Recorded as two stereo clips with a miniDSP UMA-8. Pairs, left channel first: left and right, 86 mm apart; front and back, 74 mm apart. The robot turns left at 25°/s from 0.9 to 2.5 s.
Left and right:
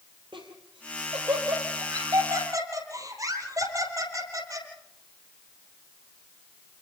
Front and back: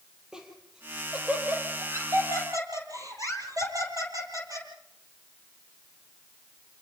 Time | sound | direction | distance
0.3 | laughter | 100° right | 5.5 m